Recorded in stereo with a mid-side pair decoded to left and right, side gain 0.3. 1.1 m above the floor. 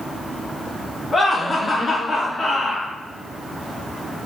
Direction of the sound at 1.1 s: 45° left.